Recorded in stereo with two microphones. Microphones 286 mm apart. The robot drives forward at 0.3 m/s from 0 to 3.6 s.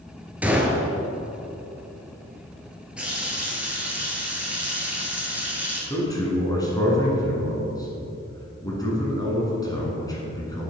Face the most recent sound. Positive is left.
turn(degrees=15)  # may be behind; listen again after turning